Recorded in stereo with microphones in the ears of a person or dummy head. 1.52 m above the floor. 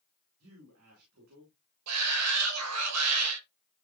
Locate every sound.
0.4 s a man speaking: 75° right (ahead or behind), 4.5 m
1.9 s a shout: 85° right, 2.5 m